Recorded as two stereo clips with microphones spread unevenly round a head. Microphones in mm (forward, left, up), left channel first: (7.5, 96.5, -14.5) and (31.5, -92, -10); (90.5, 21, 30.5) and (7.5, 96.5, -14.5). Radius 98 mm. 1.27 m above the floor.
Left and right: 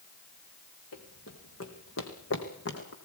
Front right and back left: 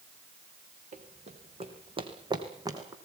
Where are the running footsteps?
115° left, 3.5 m; by 3.0 s 70° left, 4 m.